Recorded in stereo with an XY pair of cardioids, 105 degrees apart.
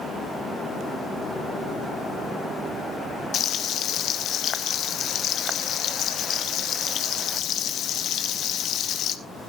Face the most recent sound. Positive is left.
turn(degrees=70)